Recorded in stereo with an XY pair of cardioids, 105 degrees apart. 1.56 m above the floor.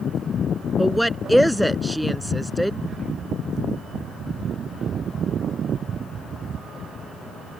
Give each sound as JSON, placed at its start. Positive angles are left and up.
{"t": 0.8, "sound": "a woman speaking", "azimuth_deg": 0}